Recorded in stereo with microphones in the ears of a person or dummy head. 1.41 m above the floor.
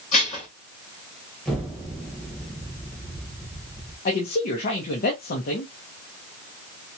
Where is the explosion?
5° left (ahead or behind), 1.3 m.